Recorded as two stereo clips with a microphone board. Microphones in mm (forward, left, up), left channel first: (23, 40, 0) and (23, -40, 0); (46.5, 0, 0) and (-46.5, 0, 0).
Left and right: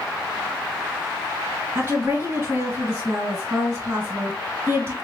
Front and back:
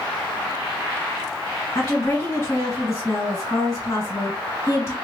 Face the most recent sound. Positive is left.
turn(degrees=-45)